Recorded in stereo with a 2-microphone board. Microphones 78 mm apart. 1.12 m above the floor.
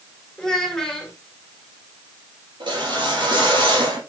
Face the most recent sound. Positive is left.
turn(degrees=-80)